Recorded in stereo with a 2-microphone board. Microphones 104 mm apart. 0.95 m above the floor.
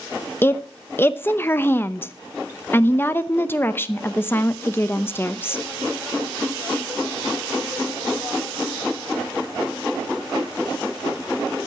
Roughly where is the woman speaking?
Left.